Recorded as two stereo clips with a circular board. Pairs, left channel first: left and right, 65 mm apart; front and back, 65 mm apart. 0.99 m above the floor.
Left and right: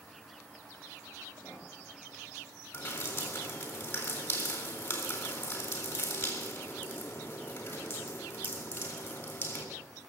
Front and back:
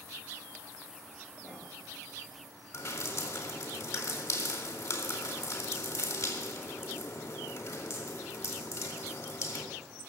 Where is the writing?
30° left, 6.5 m.